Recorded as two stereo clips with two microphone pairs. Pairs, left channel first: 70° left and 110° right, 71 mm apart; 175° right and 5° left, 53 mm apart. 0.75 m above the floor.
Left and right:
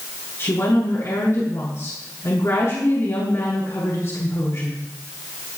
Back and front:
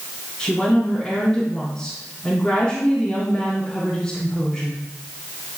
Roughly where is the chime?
No chime in this recording.